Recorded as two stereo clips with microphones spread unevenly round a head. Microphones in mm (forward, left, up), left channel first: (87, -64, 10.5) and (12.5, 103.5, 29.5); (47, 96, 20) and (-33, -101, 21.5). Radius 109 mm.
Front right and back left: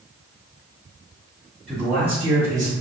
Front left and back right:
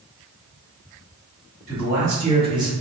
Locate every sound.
1.7 s a man speaking: 160° right, 1.4 m; by 2.7 s straight behind, 0.7 m